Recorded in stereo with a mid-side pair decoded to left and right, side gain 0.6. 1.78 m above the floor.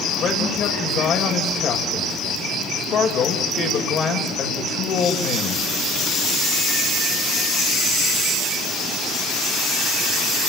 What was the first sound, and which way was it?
A man speaking, 45° left.